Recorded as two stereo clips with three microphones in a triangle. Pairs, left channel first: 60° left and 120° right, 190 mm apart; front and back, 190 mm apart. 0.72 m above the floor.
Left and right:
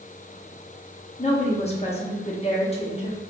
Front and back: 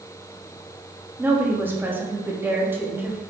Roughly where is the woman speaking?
Left.